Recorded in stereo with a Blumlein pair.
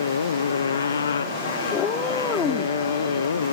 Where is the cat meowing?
20° left.